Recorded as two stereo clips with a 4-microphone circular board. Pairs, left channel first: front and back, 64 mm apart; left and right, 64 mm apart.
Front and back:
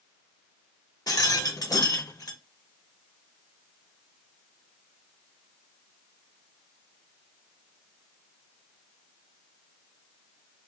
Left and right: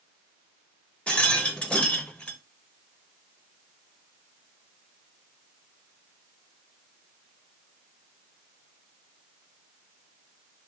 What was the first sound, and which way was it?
A rattle, 20° left.